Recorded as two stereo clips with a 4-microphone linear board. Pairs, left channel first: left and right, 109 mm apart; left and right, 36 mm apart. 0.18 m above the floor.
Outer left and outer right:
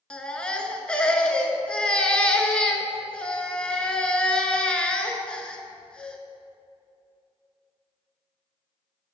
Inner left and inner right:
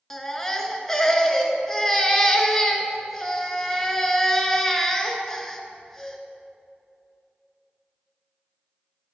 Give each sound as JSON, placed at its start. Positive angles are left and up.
{"t": 0.1, "sound": "a baby crying", "side_deg": 10, "distance_m": 0.6}